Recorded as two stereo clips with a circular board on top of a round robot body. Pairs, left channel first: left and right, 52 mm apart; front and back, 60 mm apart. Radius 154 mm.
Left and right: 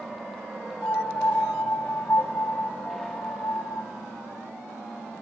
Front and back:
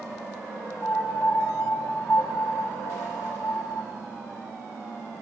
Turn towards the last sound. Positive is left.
turn(degrees=20)